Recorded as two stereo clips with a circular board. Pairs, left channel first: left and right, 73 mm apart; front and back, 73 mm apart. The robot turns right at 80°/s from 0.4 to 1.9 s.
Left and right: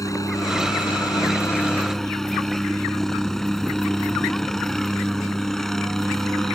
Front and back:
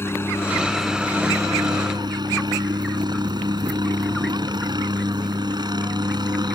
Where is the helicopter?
55° left; by 6.6 s 175° left.